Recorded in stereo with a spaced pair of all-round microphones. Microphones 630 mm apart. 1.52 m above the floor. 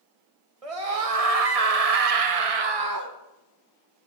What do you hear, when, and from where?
0.6 s a scream: 65° right (ahead or behind), 1.3 m; by 3.1 s 25° right (ahead or behind), 0.7 m